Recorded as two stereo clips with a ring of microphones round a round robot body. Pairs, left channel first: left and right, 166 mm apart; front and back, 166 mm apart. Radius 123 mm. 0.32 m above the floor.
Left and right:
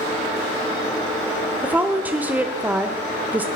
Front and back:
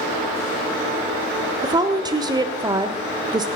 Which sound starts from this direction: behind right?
A woman speaking, at 1.6 s.